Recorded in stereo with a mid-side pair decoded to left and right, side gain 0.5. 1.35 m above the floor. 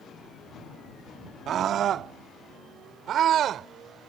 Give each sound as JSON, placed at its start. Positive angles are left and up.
{"t": 1.5, "sound": "a scream", "azimuth_deg": -60}